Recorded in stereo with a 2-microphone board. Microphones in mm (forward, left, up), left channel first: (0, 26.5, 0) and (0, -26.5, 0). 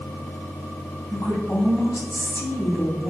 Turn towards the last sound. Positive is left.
turn(degrees=65)  # may be behind; listen again after turning